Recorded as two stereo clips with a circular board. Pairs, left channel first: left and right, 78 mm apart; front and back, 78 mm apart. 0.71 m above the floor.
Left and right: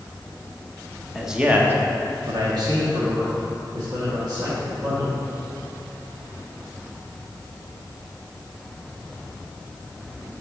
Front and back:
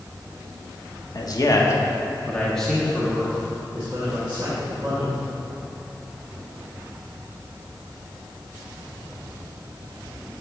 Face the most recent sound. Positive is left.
turn(degrees=-115)